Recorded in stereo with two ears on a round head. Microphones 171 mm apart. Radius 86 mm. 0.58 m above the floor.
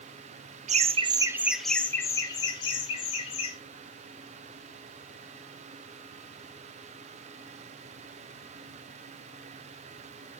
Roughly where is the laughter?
Right.